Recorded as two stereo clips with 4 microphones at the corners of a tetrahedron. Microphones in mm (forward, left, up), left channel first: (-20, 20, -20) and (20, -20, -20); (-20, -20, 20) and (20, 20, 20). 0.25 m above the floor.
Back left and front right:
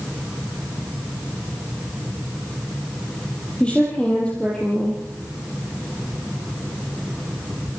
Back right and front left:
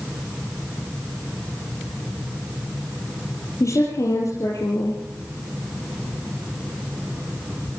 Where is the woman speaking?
155° right, 5.5 m.